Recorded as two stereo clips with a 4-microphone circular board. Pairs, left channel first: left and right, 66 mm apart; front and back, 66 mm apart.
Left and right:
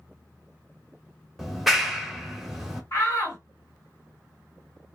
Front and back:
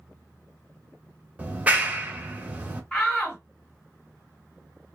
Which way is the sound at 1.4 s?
175° right.